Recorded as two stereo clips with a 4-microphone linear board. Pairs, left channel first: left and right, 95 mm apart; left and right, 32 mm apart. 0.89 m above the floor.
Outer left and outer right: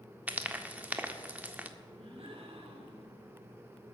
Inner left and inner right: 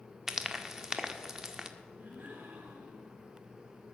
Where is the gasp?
80° right, 4 m.